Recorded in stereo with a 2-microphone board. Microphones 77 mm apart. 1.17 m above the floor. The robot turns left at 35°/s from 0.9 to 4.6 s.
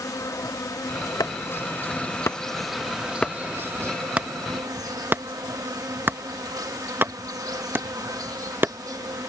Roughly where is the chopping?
Left.